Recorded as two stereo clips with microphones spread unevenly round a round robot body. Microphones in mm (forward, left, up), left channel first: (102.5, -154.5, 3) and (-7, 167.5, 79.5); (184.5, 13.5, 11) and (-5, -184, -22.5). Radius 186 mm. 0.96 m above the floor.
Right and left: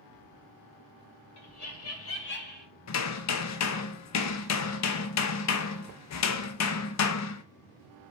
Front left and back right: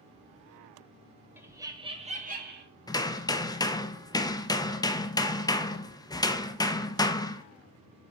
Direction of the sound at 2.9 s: 35° right.